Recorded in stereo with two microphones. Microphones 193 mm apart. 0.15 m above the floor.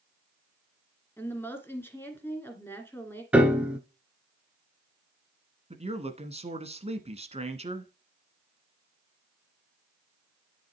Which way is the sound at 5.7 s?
35° right (ahead or behind).